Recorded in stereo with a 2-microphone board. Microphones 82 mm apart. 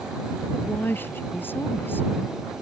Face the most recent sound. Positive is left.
turn(degrees=25)  # may be behind; listen again after turning